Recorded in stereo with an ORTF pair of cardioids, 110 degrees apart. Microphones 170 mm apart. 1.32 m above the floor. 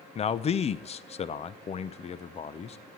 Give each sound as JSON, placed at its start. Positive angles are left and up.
{"t": 0.1, "sound": "a man speaking", "azimuth_deg": 35, "distance_m": 0.7}